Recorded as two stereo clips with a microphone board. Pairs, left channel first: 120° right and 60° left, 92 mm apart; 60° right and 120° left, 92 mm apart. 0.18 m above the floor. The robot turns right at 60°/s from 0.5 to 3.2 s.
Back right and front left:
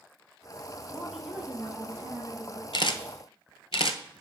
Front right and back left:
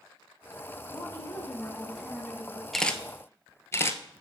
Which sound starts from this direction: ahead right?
A woman speaking, at 0.9 s.